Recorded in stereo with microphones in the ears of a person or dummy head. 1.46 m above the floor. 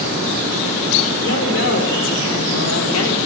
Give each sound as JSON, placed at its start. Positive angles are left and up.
{"t": 1.2, "sound": "a woman speaking", "side_deg": 70, "distance_m": 6.0}